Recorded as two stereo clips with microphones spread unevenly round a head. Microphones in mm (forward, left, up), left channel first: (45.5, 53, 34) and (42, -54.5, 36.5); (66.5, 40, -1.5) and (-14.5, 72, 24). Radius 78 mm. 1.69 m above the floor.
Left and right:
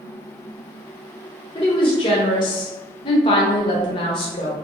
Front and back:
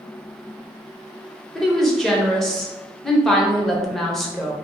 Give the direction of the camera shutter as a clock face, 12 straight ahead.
No camera shutter in this recording.